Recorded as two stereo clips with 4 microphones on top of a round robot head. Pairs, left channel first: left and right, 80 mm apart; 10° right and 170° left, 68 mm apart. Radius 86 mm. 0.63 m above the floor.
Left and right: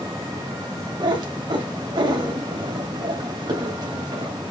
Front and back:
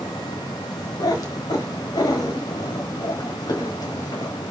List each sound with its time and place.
1.0 s a cat meowing: 50° right, 2.0 m